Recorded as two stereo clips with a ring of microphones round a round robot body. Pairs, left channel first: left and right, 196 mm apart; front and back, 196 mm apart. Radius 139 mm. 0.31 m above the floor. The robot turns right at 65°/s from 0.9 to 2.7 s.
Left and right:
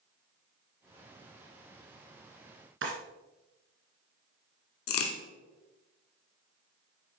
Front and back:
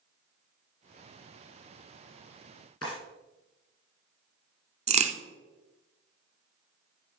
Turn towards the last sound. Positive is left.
turn(degrees=120)